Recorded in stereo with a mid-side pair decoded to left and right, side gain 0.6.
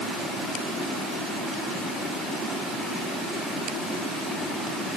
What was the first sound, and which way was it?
Only background noise.